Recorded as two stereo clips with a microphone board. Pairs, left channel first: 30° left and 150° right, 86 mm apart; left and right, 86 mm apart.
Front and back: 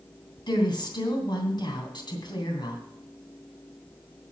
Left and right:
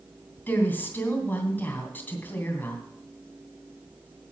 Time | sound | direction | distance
0.5 | a woman speaking | 25° left | 2.5 m